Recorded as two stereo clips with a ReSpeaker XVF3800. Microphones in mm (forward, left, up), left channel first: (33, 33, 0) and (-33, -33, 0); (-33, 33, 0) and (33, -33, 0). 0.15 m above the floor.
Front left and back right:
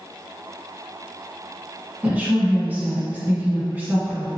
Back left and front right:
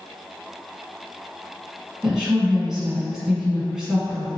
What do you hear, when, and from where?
2.0 s a woman speaking: 120° right, 1.1 m